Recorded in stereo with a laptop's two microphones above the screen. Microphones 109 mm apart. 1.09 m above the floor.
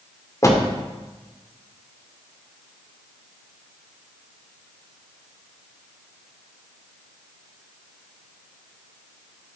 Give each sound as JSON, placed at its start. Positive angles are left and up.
{"t": 0.4, "sound": "a door slam", "side_deg": 30, "distance_m": 1.8}